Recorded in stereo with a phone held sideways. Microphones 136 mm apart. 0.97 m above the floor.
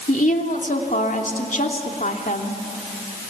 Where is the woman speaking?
75° left (ahead or behind), 3 m.